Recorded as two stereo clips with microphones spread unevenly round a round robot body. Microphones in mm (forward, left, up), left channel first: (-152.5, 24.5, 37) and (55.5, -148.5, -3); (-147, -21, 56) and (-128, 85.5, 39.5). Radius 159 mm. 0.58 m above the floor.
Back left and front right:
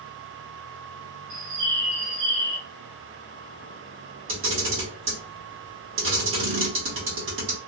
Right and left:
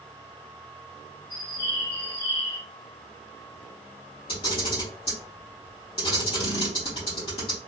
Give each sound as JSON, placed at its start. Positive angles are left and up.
{"t": 1.3, "sound": "a bird", "azimuth_deg": -45, "distance_m": 2.5}
{"t": 4.3, "sound": "a camera shutter", "azimuth_deg": -60, "distance_m": 2.0}